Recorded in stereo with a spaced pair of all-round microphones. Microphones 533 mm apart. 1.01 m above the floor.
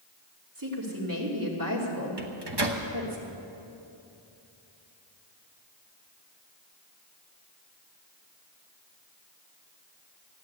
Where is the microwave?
50° right (ahead or behind), 1.2 m.